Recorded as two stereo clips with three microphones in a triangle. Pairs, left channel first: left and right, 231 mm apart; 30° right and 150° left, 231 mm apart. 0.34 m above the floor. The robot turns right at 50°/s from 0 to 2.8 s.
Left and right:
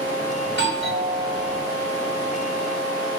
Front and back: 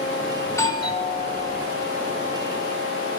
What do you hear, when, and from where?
0.5 s a doorbell: 110° right, 3 m; by 1.7 s 50° right, 3 m